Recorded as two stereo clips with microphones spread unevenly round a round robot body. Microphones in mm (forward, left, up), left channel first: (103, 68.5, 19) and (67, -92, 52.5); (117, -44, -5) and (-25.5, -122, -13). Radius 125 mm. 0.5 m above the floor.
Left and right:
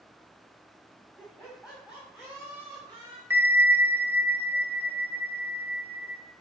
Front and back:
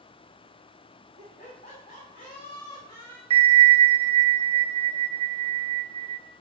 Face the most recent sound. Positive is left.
turn(degrees=175)